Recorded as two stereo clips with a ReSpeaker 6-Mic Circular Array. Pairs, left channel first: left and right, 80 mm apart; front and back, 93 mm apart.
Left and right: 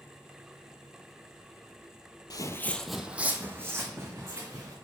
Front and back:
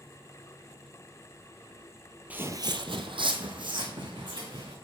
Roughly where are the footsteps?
Left.